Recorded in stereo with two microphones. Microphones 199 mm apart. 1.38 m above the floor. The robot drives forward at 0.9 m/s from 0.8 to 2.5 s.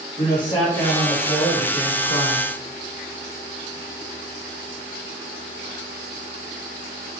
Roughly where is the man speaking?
Left.